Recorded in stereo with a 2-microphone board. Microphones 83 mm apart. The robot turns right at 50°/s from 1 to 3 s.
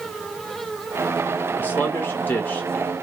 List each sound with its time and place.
1.6 s a man speaking: 25° left (ahead or behind), 0.9 m; by 2.9 s 15° left (ahead or behind), 0.9 m